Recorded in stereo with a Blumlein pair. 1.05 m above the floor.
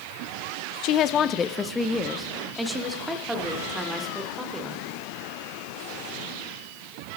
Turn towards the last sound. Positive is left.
turn(degrees=-10)